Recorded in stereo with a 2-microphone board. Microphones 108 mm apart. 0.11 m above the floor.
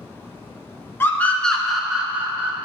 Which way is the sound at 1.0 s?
20° left (ahead or behind).